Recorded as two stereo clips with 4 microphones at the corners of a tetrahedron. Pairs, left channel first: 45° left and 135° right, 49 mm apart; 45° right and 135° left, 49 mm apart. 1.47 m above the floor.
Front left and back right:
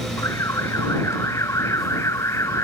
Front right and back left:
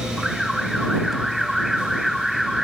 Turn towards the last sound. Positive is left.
turn(degrees=50)